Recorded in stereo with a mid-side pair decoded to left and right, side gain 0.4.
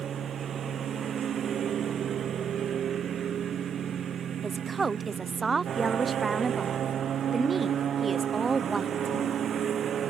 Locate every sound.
0.0 s a lawn mower: 60° right
4.4 s a woman speaking: 35° right